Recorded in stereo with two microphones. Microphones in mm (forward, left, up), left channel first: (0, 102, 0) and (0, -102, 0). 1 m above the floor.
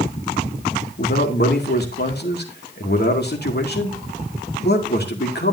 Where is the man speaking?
60° left (ahead or behind), 2.5 m.